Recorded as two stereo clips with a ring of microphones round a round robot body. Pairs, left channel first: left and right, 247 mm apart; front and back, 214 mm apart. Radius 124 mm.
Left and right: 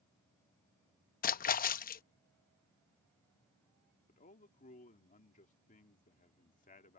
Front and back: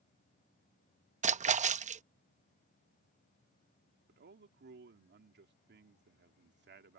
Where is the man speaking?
150° left.